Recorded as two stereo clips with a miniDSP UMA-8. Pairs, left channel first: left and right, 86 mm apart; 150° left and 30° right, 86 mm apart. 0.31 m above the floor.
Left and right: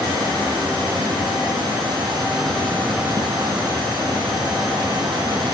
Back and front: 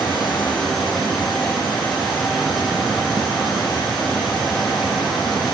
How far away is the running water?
About 6.5 m.